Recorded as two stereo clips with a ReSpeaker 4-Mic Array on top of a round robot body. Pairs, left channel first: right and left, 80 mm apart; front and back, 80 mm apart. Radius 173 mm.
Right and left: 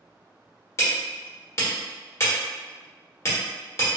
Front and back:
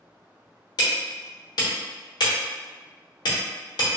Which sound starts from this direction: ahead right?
Hammering, at 0.8 s.